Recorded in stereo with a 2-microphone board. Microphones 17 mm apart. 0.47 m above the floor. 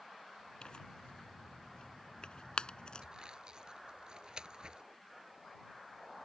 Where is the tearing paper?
70° left (ahead or behind).